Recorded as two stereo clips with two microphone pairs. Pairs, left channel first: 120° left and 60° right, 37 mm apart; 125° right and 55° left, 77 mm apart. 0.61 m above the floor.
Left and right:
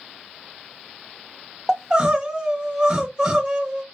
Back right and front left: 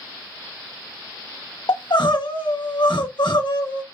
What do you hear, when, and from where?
1.7 s crying: 125° right, 0.7 m